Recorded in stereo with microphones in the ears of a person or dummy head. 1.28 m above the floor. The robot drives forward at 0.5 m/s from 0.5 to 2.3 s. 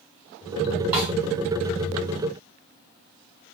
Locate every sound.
0.9 s a snare drum: 10° right (ahead or behind), 1.3 m